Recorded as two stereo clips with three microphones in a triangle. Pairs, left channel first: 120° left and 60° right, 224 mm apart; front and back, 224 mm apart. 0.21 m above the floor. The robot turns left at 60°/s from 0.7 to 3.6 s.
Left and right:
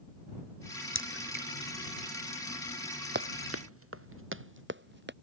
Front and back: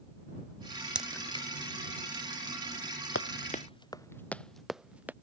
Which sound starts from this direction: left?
A crack, at 0.9 s.